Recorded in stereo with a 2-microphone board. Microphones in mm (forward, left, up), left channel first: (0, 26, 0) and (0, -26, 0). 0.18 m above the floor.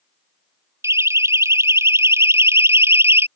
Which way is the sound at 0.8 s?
65° right (ahead or behind).